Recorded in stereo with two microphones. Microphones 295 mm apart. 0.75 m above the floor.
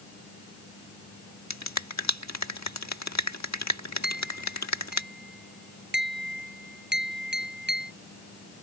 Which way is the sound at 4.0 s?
35° right (ahead or behind).